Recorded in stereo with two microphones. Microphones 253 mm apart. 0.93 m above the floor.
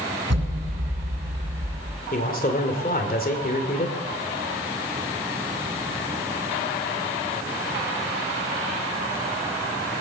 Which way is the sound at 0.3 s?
75° right (ahead or behind).